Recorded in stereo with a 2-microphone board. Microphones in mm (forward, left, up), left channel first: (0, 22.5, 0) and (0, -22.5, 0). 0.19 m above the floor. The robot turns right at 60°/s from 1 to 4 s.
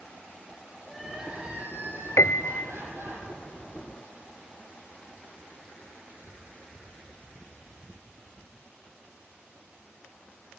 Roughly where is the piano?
Left.